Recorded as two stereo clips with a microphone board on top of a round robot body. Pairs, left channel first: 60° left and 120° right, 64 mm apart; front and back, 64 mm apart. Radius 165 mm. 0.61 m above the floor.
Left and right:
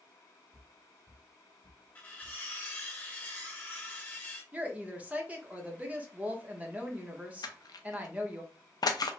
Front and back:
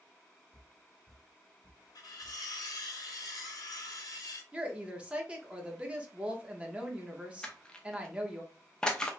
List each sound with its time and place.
0.5 s footsteps: 5° right, 1.1 m; by 2.5 s 110° left, 1.0 m
1.9 s cutlery clinking: 5° right, 1.0 m
4.5 s a woman speaking: 145° right, 1.0 m
7.4 s crushing: 75° left, 0.5 m